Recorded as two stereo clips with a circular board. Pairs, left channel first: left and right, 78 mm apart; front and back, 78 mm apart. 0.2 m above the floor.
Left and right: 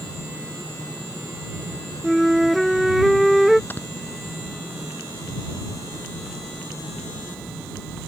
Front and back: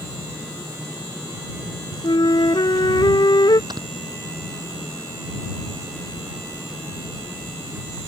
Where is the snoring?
155° left.